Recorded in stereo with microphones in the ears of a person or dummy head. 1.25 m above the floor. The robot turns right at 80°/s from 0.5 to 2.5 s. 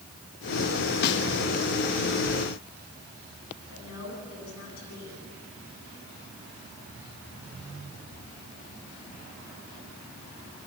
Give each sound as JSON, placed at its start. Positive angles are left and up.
{"t": 1.0, "sound": "a snare drum", "side_deg": 55, "distance_m": 1.8}
{"t": 3.7, "sound": "a woman speaking", "side_deg": 85, "distance_m": 9.5}